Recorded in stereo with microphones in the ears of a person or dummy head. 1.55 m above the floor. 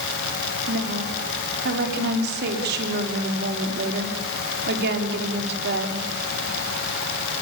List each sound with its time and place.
0.7 s a woman speaking: 55° right (ahead or behind), 5 m